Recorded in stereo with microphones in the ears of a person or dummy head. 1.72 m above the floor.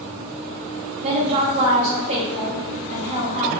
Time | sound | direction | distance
1.0 | a woman speaking | 25° right (ahead or behind) | 0.7 m